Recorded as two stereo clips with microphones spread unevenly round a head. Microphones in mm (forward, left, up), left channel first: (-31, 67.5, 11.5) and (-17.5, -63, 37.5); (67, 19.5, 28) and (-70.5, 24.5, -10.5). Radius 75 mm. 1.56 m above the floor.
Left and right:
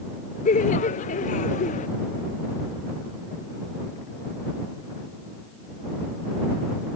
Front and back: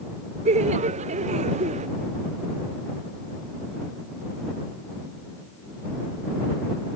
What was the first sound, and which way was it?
Laughter, 130° left.